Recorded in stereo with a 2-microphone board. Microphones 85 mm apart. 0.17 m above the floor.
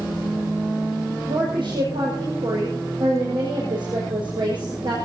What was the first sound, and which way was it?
A woman speaking, 80° right.